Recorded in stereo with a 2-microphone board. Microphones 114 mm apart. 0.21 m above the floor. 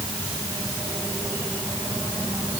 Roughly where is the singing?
No singing in this recording.